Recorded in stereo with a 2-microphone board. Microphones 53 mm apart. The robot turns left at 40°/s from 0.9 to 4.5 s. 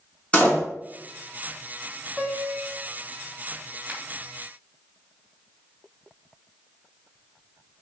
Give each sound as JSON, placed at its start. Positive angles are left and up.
{"t": 0.3, "sound": "a door slam", "side_deg": 25, "distance_m": 1.7}
{"t": 2.2, "sound": "a piano", "side_deg": 0, "distance_m": 0.8}
{"t": 3.9, "sound": "a finger snap", "side_deg": -20, "distance_m": 1.4}